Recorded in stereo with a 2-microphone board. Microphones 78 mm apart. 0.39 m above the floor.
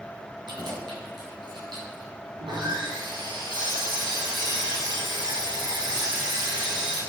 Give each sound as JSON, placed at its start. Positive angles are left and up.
{"t": 0.5, "sound": "keys jangling", "side_deg": -70, "distance_m": 4.0}
{"t": 2.4, "sound": "sawing", "side_deg": -75, "distance_m": 4.0}